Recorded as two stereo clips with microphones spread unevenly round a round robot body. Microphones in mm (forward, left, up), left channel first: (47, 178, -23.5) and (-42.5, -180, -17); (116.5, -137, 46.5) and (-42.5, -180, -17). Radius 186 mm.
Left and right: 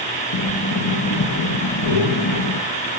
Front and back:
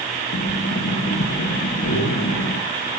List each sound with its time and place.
0.3 s breathing: 35° left, 0.6 m